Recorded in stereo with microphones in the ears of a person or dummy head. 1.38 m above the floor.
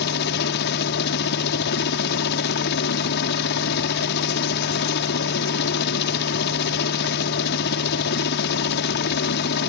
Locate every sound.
0.0 s a helicopter: 55° left (ahead or behind)